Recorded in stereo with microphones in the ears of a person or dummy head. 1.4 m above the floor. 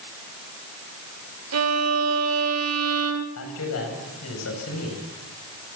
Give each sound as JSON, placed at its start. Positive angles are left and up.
{"t": 1.5, "sound": "a violin", "side_deg": -75, "distance_m": 1.9}
{"t": 3.4, "sound": "a man speaking", "side_deg": 75, "distance_m": 8.5}